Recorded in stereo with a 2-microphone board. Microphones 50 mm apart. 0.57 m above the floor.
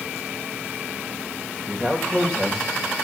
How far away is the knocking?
I don't hear knocking.